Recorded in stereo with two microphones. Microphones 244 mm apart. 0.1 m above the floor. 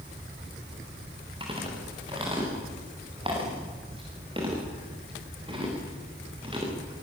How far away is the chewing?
About 9 m.